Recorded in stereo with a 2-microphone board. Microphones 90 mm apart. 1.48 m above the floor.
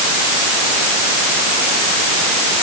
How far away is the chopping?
No chopping in this recording.